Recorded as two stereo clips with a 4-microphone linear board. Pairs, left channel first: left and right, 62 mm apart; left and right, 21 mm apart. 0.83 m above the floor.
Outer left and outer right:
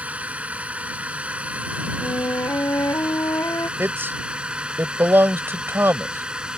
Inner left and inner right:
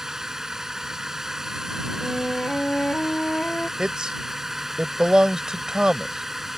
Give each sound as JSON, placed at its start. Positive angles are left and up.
{"t": 0.0, "sound": "a drone", "side_deg": -25}
{"t": 2.0, "sound": "a flute", "side_deg": 70}
{"t": 3.8, "sound": "a man speaking", "side_deg": -35}